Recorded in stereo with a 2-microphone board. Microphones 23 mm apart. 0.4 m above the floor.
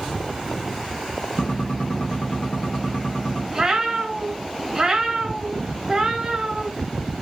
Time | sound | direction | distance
1.4 | a gunshot | 50° left (ahead or behind) | 0.7 m
3.5 | a cat meowing | 25° right (ahead or behind) | 0.5 m